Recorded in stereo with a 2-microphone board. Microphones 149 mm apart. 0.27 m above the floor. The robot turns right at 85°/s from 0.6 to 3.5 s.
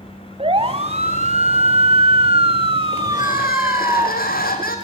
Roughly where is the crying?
Ahead left.